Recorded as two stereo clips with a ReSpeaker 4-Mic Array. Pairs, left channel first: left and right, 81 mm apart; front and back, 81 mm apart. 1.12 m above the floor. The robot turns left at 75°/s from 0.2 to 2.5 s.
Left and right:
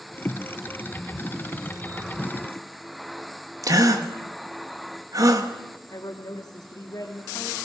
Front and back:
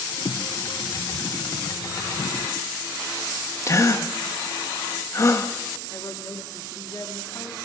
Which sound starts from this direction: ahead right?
A gasp, at 3.6 s.